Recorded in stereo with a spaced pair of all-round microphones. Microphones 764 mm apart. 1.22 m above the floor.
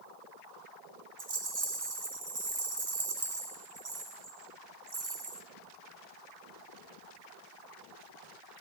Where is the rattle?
60° right (ahead or behind), 1.7 m.